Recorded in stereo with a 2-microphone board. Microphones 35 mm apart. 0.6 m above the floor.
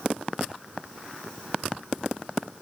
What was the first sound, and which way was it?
Only background noise.